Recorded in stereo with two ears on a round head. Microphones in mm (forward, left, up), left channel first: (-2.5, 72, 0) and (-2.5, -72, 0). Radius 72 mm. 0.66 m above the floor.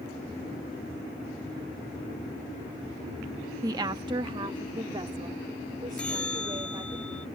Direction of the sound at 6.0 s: 5° left (ahead or behind).